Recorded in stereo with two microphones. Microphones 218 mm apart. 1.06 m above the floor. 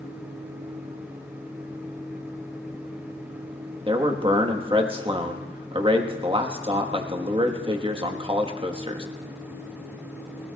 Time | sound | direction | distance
3.9 | a man speaking | 25° right (ahead or behind) | 1.3 m